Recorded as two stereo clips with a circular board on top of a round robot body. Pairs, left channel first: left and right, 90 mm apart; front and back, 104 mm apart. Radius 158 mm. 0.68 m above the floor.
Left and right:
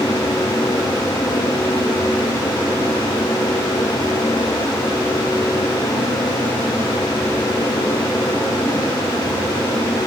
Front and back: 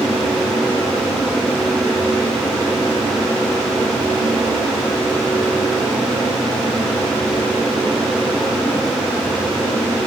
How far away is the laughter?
I don't hear laughter.